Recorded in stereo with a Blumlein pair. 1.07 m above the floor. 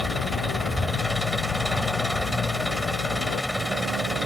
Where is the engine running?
Straight ahead.